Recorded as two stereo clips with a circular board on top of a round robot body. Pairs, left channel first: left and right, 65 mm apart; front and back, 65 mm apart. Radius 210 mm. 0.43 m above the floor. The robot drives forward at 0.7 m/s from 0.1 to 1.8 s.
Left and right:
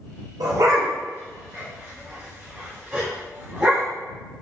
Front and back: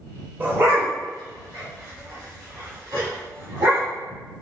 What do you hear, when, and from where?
0.4 s a dog barking: 115° right, 0.5 m; by 3.9 s 160° right, 1.3 m